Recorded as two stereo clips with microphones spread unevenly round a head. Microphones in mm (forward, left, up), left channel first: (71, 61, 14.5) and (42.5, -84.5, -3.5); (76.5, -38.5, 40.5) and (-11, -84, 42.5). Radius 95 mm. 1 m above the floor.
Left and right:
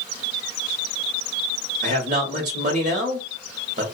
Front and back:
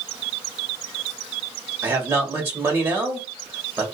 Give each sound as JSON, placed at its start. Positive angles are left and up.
{"t": 1.8, "sound": "a man speaking", "azimuth_deg": -85, "distance_m": 1.5}